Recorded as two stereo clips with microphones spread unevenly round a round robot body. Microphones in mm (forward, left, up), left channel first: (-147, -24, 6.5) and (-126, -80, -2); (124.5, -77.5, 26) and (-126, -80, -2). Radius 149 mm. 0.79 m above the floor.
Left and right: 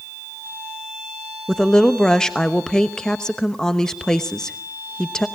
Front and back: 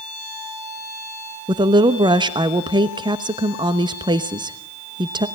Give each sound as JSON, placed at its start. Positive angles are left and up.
{"t": 1.5, "sound": "a woman speaking", "azimuth_deg": -170, "distance_m": 1.0}